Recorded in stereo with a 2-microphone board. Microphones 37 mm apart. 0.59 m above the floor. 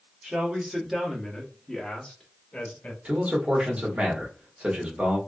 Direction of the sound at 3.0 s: 30° right (ahead or behind).